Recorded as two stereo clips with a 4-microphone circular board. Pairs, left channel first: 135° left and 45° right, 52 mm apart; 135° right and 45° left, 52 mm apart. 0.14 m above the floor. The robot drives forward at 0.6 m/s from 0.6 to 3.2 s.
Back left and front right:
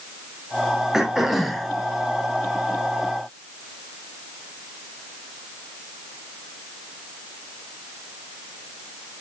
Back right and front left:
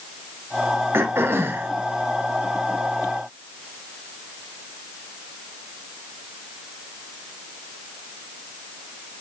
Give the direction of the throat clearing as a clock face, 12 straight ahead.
11 o'clock.